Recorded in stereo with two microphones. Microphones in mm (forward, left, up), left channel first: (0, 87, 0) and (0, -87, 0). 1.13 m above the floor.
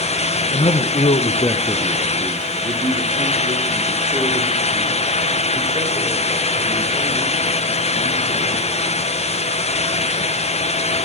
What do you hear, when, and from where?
0.5 s a man speaking: 40° left (ahead or behind), 1.2 m; by 8.8 s 35° right (ahead or behind), 8 m